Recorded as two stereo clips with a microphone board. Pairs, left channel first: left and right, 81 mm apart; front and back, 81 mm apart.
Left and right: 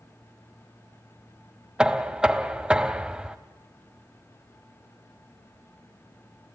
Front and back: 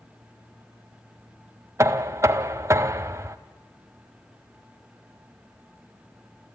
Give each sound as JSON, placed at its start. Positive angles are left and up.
{"t": 1.8, "sound": "knocking", "azimuth_deg": -165, "distance_m": 0.7}